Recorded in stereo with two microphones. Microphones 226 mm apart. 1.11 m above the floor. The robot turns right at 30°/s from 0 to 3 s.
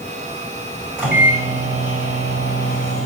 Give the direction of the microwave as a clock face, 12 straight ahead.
6 o'clock.